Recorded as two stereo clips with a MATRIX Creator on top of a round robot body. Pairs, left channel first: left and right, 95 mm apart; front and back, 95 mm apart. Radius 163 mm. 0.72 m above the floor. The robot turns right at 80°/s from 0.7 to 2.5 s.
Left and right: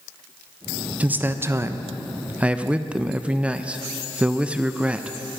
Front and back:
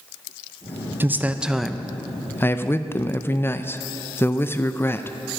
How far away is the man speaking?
About 0.6 m.